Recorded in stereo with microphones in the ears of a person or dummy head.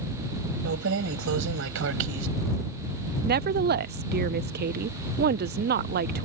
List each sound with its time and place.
0.7 s keys jangling: 70° right (ahead or behind)
3.2 s a woman speaking: 45° right (ahead or behind)